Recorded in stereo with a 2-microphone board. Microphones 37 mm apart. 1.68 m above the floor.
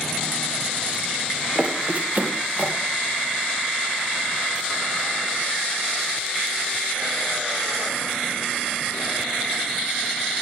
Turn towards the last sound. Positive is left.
turn(degrees=-60)  # may be behind; listen again after turning